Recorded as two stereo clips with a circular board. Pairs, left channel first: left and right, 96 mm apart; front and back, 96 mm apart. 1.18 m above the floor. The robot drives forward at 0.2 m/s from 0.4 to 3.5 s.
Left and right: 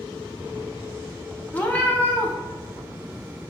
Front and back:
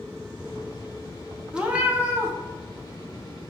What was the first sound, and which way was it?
A cat meowing, 120° left.